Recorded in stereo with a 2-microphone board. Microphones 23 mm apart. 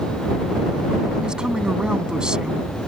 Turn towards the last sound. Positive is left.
turn(degrees=-35)  # may be behind; listen again after turning